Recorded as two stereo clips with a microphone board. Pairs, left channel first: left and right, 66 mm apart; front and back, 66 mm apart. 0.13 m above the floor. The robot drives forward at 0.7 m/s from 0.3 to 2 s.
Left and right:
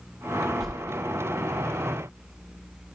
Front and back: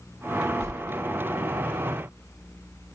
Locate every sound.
0.6 s a whoosh: straight behind, 0.9 m